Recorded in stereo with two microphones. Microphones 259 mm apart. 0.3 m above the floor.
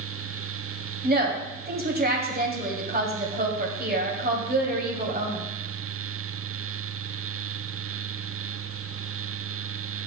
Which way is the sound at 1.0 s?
35° right (ahead or behind).